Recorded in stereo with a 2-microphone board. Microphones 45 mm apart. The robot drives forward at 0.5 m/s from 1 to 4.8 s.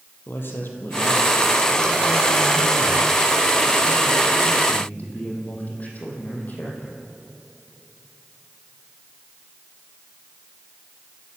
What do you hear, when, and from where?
0.3 s a man speaking: 55° left (ahead or behind), 4 m; by 7.0 s 40° left (ahead or behind), 5 m